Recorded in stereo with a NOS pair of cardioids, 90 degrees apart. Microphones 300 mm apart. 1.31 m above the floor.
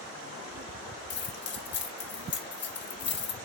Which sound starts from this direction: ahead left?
Keys jangling, at 1.1 s.